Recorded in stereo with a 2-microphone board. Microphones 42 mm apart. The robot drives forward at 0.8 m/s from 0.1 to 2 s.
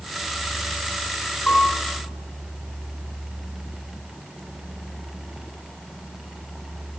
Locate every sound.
1.5 s a piano: 30° left (ahead or behind), 3.5 m; by 1.9 s 25° left (ahead or behind), 4 m